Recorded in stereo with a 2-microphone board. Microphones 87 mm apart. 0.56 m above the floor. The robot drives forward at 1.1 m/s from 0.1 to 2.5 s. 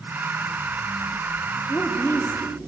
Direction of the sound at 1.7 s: 25° left (ahead or behind).